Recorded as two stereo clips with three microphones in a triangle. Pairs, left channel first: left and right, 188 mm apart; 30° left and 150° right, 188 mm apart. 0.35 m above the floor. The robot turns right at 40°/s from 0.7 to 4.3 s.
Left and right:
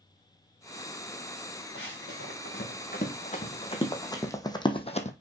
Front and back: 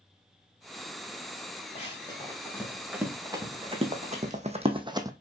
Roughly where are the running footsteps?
Left.